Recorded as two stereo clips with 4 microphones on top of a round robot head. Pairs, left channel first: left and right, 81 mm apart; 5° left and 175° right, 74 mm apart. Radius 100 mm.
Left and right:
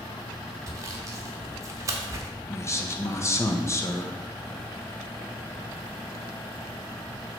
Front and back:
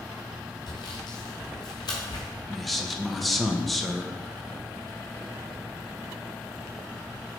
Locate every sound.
0.7 s sawing: 40° right, 0.8 m
2.5 s a man speaking: 90° left, 1.1 m